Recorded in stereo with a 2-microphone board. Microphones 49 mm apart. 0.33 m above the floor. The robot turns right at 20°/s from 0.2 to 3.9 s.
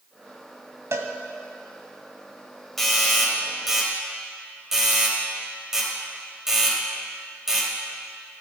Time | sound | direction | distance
0.9 | a cowbell | 70° right (ahead or behind) | 1.0 m
2.8 | a doorbell | 5° left (ahead or behind) | 2.5 m